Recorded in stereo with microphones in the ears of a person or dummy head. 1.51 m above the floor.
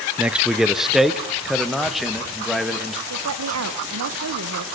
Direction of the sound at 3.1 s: 75° right (ahead or behind).